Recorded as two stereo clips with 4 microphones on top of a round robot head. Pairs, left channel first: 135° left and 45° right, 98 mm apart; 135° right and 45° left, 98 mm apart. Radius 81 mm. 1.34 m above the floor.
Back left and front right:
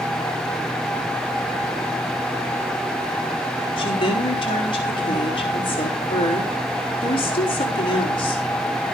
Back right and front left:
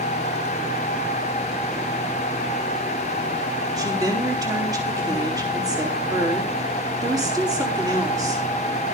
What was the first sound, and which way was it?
A woman speaking, 95° left.